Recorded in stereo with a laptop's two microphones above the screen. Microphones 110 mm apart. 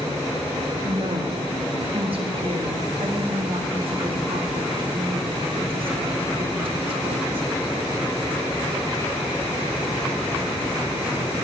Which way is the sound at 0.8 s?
50° right (ahead or behind).